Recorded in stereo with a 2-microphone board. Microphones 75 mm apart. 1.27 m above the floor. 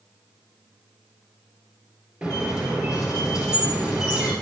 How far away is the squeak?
About 2.5 m.